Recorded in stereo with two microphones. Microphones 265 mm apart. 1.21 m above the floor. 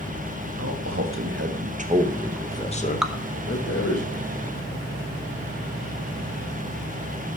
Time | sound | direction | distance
0.6 | a man speaking | 60° right (ahead or behind) | 1.7 m
3.0 | dripping | centre (ahead or behind) | 0.6 m